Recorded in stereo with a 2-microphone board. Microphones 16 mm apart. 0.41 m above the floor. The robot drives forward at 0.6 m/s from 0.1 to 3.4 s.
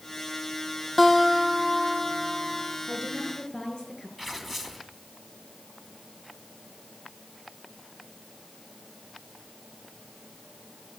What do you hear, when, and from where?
1.0 s a guitar: centre (ahead or behind), 3 m
2.9 s a woman speaking: 40° left (ahead or behind), 6 m
4.2 s tearing paper: centre (ahead or behind), 3.5 m